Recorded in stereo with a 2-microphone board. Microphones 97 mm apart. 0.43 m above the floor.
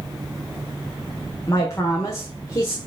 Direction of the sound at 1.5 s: 30° left (ahead or behind).